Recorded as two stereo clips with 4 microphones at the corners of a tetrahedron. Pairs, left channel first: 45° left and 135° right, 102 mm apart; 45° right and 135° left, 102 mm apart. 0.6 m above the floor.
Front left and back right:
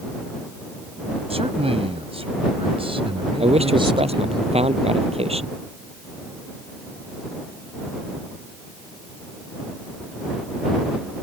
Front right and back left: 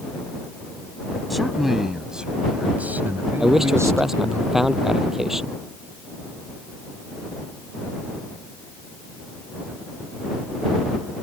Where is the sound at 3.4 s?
140° right.